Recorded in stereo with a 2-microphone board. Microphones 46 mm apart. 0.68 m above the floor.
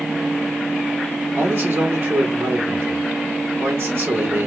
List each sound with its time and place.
1.4 s a man speaking: 55° right (ahead or behind), 1.6 m